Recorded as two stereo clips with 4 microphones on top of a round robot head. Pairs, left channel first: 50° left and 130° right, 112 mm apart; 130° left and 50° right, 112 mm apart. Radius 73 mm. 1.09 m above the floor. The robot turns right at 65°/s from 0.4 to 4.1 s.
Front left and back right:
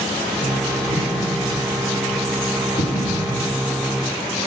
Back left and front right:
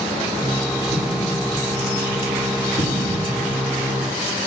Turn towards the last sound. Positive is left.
turn(degrees=175)